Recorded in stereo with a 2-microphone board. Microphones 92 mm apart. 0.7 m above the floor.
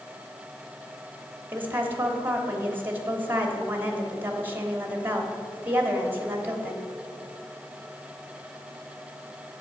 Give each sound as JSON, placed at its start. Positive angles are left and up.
{"t": 1.5, "sound": "a woman speaking", "side_deg": -20, "distance_m": 1.3}